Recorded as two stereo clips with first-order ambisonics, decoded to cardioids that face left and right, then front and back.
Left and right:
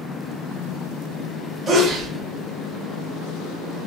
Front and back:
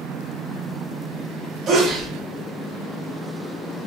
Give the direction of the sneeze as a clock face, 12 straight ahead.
5 o'clock.